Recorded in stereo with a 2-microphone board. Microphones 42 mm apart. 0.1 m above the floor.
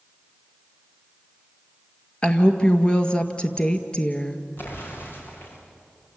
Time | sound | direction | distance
2.2 | a woman speaking | 25° left (ahead or behind) | 1.9 m
4.6 | an explosion | 60° left (ahead or behind) | 7.5 m